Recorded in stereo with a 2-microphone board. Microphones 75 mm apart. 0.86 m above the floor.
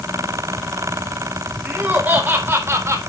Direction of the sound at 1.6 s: 15° right (ahead or behind).